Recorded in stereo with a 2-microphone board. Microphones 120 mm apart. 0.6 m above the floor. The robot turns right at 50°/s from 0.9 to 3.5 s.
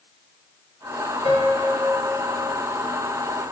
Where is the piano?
125° left, 4.5 m; by 2.5 s 170° right, 4.5 m.